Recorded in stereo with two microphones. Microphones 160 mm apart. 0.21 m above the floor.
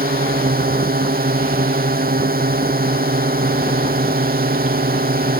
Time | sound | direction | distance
0.0 | a drone | 70° right (ahead or behind) | ?